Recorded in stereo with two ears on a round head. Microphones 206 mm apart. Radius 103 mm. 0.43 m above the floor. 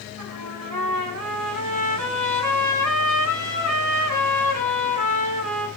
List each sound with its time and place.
0.2 s a trumpet: 85° right, 1.0 m